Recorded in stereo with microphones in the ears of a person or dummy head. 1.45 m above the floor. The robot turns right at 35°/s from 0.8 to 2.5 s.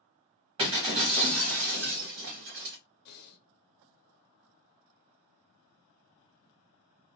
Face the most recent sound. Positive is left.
turn(degrees=60)  # may be behind; listen again after turning